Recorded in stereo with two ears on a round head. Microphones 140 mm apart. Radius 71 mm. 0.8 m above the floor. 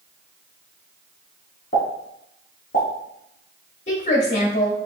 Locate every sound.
1.7 s a pop: 55° left (ahead or behind), 2.5 m
3.9 s a woman speaking: 50° left (ahead or behind), 2 m